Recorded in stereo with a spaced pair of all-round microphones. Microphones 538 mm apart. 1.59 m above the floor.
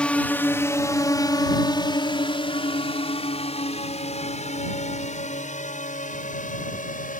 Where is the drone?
Centre (ahead or behind); by 7.2 s 15° left (ahead or behind).